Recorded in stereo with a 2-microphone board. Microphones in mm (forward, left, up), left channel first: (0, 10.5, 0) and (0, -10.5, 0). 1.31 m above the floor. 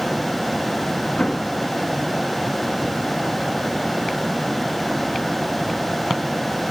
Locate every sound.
1.2 s an explosion: 50° left (ahead or behind), 1.4 m